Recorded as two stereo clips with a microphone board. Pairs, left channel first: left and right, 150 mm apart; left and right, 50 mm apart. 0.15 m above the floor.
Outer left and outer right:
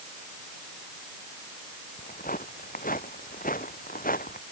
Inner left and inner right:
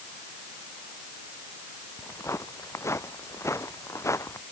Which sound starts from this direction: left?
Footsteps, at 2.0 s.